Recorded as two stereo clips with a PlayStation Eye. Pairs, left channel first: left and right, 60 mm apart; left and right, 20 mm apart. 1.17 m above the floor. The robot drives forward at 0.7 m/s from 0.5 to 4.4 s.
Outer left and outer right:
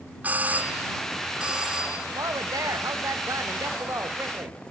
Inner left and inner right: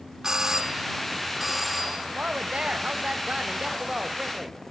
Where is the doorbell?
25° right (ahead or behind), 0.7 m; by 2.0 s 10° right (ahead or behind), 1.6 m.